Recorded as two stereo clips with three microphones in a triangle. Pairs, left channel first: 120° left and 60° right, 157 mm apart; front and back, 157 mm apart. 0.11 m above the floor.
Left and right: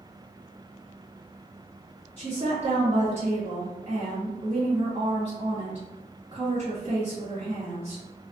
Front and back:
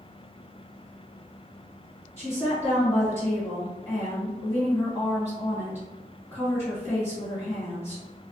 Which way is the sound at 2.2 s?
55° right.